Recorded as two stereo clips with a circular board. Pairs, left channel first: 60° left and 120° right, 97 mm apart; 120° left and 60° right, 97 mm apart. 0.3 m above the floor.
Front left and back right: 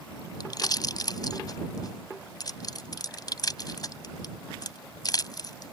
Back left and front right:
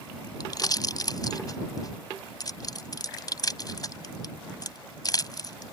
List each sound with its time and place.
0.4 s a pop: 90° left